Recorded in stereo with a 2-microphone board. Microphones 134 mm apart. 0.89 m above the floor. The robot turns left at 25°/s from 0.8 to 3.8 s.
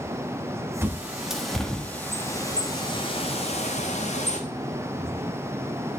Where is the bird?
15° right (ahead or behind), 1.1 m; by 4.4 s 55° left (ahead or behind), 1.1 m.